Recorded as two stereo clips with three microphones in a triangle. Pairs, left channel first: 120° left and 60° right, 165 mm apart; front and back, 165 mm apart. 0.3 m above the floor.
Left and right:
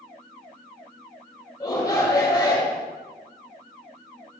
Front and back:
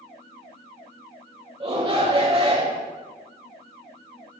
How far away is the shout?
About 1.0 m.